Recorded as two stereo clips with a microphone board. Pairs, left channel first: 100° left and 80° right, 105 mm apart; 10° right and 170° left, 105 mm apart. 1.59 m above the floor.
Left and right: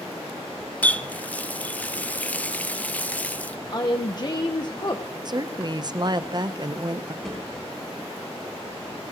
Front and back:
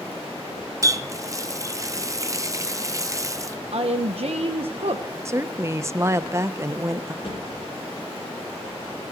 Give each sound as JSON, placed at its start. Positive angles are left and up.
{"t": 0.8, "sound": "a running tap", "azimuth_deg": 160, "distance_m": 0.7}
{"t": 3.7, "sound": "a woman speaking", "azimuth_deg": 145, "distance_m": 0.9}
{"t": 5.2, "sound": "a woman speaking", "azimuth_deg": -125, "distance_m": 0.7}
{"t": 7.2, "sound": "a thud", "azimuth_deg": 15, "distance_m": 6.5}